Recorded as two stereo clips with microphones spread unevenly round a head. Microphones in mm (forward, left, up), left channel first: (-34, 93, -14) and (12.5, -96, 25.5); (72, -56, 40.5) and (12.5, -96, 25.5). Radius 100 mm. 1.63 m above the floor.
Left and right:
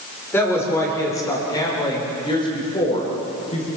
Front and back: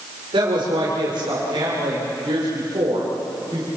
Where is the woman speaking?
175° right, 6.5 m; by 3.7 s 165° left, 7.5 m.